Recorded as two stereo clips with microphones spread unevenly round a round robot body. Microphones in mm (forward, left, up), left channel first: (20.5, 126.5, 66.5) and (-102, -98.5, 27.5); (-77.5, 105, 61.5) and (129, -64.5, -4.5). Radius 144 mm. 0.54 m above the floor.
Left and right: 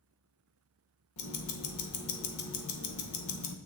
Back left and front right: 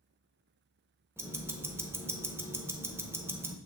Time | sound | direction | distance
1.2 | ticking | 40° left | 0.9 m